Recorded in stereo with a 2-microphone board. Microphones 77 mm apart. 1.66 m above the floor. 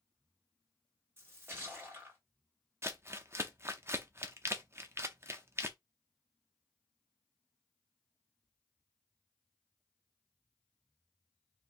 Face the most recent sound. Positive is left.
turn(degrees=-35)  # may be behind; listen again after turning